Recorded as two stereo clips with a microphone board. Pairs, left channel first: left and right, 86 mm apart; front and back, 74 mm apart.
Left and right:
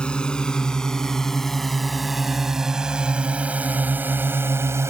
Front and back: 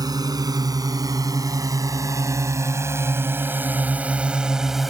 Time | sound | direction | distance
0.0 | a drone | 165° left | ?